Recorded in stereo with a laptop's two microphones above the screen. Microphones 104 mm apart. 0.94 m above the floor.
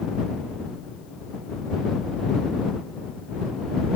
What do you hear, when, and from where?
Only background noise.